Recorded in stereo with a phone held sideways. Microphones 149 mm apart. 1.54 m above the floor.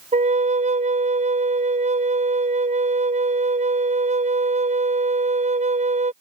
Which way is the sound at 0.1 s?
50° right (ahead or behind).